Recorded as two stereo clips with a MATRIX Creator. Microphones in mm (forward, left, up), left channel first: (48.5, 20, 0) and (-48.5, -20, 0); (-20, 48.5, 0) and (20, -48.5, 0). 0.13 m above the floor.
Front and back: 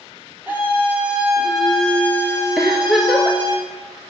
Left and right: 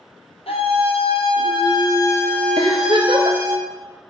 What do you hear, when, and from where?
0.5 s a scream: 130° left, 2.5 m; by 3.6 s 15° right, 1.9 m
2.6 s a giggle: 70° right, 1.3 m